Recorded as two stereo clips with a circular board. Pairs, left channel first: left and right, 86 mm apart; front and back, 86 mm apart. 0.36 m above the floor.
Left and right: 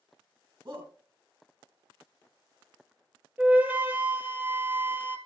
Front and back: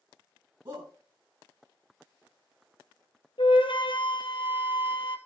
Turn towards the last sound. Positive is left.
turn(degrees=-20)